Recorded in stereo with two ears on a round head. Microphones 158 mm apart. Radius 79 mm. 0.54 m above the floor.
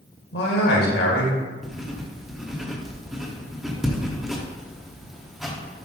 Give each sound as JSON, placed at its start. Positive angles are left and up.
{"t": 0.3, "sound": "a man speaking", "side_deg": 70, "distance_m": 1.9}
{"t": 1.6, "sound": "writing", "side_deg": 0, "distance_m": 1.0}